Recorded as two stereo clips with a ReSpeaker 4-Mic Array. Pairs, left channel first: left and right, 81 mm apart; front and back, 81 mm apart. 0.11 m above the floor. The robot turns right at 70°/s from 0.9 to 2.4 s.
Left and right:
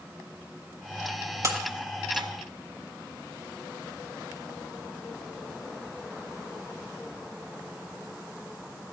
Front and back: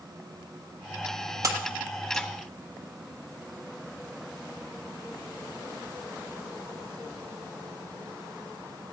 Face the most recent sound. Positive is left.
turn(degrees=-70)